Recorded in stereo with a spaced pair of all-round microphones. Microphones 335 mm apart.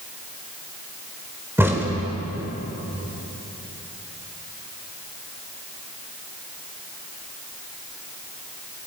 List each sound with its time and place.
1.6 s a crack: 5° right (ahead or behind), 3.5 m